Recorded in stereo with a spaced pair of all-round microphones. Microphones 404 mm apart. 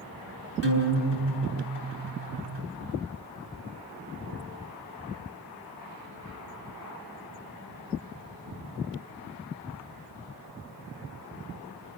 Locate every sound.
0.6 s a guitar: 80° right, 7 m